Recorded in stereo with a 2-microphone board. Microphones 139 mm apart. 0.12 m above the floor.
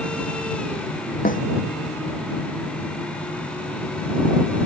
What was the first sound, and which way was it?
A snare drum, 80° left.